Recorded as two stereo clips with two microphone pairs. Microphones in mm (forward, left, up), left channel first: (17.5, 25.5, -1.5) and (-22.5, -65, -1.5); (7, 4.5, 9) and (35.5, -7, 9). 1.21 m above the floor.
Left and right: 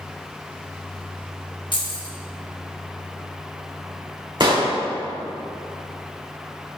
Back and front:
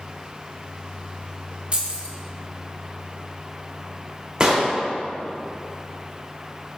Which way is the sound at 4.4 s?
80° right.